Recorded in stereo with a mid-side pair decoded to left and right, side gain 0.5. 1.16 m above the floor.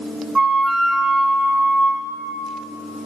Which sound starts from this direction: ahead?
A flute, at 0.3 s.